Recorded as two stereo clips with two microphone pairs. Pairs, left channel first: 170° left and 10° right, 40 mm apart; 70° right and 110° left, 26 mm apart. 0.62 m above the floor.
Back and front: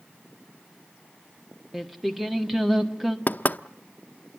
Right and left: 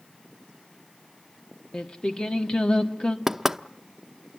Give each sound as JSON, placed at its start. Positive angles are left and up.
{"t": 1.7, "sound": "singing", "azimuth_deg": -100, "distance_m": 1.4}
{"t": 3.3, "sound": "knocking", "azimuth_deg": 180, "distance_m": 0.6}